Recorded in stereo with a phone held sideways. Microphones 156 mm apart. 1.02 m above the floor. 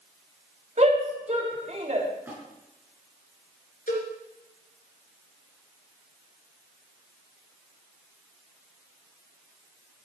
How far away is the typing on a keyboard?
No typing on a keyboard in this recording.